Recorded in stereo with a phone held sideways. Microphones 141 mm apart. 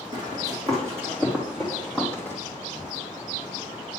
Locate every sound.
0.1 s running footsteps: 30° right (ahead or behind), 3.5 m; by 2.4 s 15° left (ahead or behind), 2.5 m